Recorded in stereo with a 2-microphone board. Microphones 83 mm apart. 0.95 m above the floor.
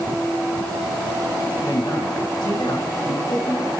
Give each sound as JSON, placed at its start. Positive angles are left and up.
{"t": 1.6, "sound": "a man speaking", "side_deg": 60, "distance_m": 7.0}